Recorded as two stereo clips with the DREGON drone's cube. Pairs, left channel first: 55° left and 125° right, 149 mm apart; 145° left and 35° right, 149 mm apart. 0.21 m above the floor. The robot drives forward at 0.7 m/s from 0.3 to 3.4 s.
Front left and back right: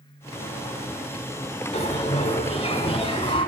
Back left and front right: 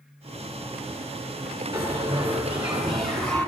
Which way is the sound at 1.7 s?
30° left.